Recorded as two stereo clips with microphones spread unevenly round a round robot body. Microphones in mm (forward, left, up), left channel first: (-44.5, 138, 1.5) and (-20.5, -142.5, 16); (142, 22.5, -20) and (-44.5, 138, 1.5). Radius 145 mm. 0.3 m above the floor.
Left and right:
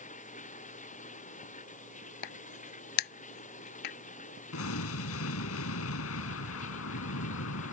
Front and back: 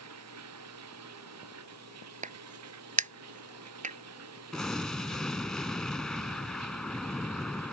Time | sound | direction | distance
0.0 | running water | 160° left | ?
2.2 | a crack | 95° left | ?
4.5 | an explosion | 55° left | ?